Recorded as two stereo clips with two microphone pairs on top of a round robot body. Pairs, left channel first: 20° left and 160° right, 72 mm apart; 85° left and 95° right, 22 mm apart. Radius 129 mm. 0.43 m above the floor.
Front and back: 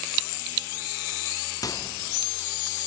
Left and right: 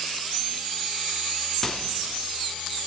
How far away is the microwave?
About 0.8 m.